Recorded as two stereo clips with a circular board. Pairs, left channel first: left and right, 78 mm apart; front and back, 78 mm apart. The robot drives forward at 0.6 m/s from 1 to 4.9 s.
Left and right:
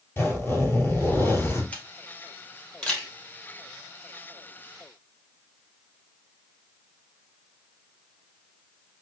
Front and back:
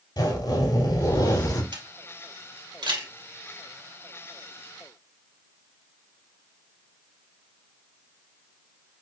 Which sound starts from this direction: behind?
A camera shutter, at 1.7 s.